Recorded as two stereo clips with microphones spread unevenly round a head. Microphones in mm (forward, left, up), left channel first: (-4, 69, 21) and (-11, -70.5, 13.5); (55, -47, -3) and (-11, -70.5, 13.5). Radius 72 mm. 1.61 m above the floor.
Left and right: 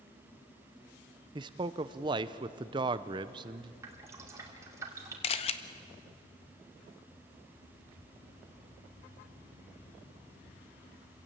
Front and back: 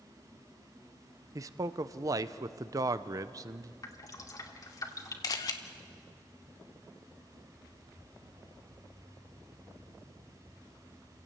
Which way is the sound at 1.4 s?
150° right.